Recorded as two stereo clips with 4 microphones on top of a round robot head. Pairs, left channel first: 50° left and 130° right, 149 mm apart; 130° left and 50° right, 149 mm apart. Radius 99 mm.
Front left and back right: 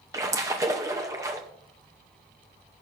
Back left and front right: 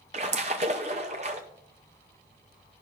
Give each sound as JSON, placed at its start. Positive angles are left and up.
{"t": 0.1, "sound": "a splash", "azimuth_deg": -70, "distance_m": 0.6}